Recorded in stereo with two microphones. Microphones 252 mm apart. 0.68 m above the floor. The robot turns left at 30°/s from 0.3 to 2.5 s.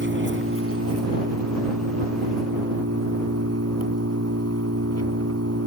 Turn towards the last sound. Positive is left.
turn(degrees=-110)